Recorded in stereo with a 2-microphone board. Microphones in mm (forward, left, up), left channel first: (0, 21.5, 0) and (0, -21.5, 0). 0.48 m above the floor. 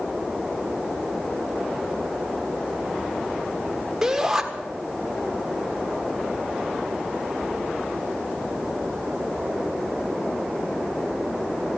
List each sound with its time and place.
4.0 s a shout: 15° right (ahead or behind), 1.4 m